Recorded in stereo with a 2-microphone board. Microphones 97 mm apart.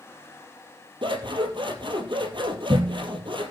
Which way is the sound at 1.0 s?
60° right (ahead or behind).